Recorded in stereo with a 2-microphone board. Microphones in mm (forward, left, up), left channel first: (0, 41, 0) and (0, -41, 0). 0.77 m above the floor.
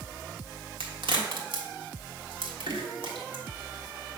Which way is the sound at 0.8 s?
85° right.